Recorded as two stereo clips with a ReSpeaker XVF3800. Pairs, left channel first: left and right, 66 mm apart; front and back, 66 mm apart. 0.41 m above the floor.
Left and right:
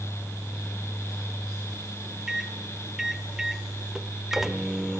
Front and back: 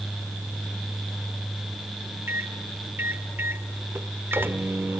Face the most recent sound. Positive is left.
turn(degrees=-170)